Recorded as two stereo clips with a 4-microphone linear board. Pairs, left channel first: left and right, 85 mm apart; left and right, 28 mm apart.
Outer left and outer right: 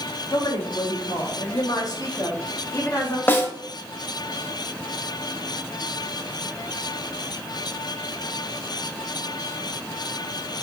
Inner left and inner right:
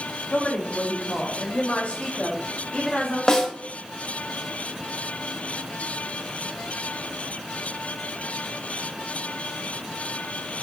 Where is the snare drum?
25° left (ahead or behind), 1.2 m.